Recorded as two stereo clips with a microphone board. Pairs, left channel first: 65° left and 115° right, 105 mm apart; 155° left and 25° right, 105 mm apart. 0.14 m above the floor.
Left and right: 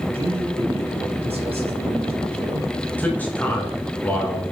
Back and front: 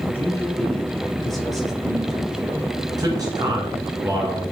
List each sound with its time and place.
0.1 s a man speaking: 130° right, 2.5 m; by 2.7 s 100° right, 3 m
3.0 s a man speaking: straight ahead, 2 m